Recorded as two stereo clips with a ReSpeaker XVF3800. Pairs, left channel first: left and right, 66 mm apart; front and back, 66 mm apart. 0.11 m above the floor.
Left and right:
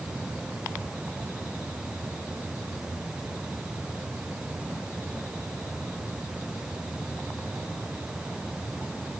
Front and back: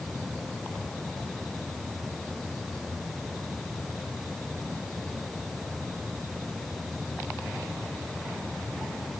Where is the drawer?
No drawer in this recording.